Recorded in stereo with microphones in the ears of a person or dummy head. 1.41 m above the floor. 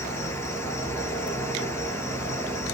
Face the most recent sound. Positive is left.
turn(degrees=20)  # may be behind; listen again after turning